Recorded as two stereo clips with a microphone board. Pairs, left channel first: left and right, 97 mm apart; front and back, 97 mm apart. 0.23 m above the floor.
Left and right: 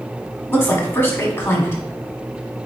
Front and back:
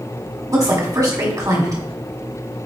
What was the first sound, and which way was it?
A woman speaking, 145° left.